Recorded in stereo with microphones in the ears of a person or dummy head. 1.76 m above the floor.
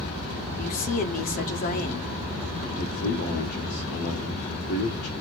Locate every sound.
0.6 s a woman speaking: 50° left (ahead or behind), 1.0 m
2.8 s a man speaking: 55° left (ahead or behind), 1.0 m